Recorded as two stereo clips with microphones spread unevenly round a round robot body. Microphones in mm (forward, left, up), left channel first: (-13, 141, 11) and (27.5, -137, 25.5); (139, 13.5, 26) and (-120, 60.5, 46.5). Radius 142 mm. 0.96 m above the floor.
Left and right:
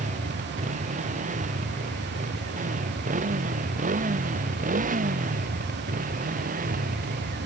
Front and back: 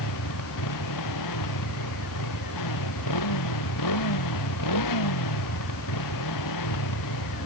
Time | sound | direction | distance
0.0 | a motorcycle | 15° right | ?